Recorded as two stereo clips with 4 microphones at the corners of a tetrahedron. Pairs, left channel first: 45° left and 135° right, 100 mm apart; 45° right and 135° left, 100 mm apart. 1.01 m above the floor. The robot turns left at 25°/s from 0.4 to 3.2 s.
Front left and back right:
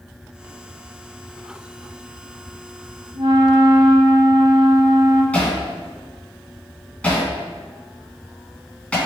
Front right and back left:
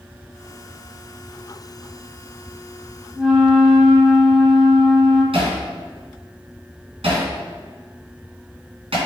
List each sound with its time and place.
3.1 s a flute: 135° right, 3 m; by 5.2 s 140° right, 3 m
5.3 s hammering: 125° left, 2.5 m